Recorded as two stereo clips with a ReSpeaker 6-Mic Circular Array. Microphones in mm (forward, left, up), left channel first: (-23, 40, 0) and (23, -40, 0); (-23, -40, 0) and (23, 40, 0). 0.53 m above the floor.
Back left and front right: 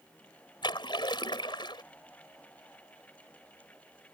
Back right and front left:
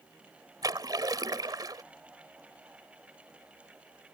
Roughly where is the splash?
Left.